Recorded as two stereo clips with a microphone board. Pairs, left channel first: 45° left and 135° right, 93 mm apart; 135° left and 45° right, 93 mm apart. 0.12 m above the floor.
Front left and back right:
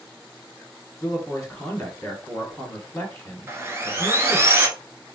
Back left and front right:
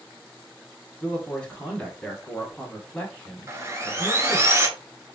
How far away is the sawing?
About 0.8 m.